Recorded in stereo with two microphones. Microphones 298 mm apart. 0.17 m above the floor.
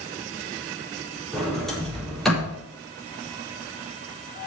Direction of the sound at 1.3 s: Centre (ahead or behind).